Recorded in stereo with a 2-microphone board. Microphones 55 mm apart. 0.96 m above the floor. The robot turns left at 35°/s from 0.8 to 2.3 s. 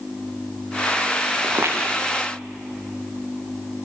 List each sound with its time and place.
1.4 s footsteps: 45° right (ahead or behind), 4 m; by 1.7 s 55° right (ahead or behind), 4 m